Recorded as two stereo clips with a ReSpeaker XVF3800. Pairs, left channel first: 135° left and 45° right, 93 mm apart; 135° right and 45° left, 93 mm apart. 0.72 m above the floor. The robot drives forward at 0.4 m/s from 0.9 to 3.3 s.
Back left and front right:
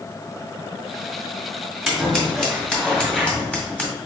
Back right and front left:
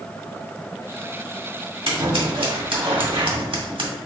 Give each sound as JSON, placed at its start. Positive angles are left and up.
{"t": 1.9, "sound": "scissors", "azimuth_deg": 45, "distance_m": 1.8}